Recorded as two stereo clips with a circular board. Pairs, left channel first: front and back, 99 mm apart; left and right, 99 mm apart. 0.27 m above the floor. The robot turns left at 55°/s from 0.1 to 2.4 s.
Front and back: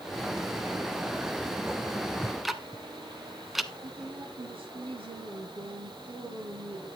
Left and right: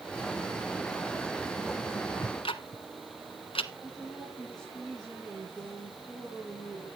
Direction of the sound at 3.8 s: 175° left.